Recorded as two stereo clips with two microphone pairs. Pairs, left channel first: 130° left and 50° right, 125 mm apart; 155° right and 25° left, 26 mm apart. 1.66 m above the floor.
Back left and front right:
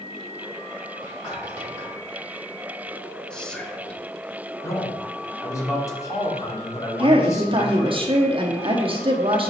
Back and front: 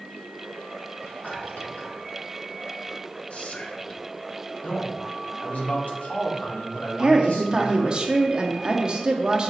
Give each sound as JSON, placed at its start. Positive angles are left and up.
{"t": 1.0, "sound": "whispering", "azimuth_deg": -175, "distance_m": 3.5}
{"t": 3.3, "sound": "whispering", "azimuth_deg": -150, "distance_m": 1.0}
{"t": 4.6, "sound": "a man speaking", "azimuth_deg": -165, "distance_m": 1.8}
{"t": 7.0, "sound": "a woman speaking", "azimuth_deg": -25, "distance_m": 0.8}